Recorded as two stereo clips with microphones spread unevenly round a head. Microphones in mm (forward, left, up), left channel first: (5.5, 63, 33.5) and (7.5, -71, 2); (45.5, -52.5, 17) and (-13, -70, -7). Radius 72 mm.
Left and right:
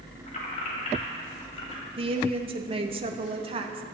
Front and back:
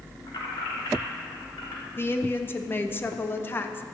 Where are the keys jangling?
55° left, 3 m; by 1.9 s 40° left, 3.5 m.